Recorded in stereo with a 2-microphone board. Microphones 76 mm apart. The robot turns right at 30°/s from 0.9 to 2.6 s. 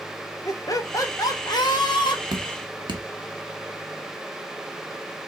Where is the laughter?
50° left, 0.9 m; by 2.2 s 90° left, 0.9 m.